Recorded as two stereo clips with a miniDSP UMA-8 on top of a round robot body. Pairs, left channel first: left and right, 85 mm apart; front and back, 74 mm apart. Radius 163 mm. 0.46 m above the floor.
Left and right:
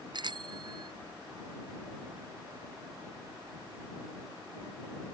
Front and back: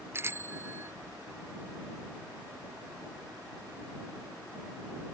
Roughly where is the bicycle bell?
Behind right.